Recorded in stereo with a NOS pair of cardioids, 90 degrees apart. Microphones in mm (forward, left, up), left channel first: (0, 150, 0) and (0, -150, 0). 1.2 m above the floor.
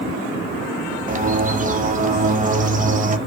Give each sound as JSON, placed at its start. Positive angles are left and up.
{"t": 1.1, "sound": "a bird", "azimuth_deg": -25, "distance_m": 0.7}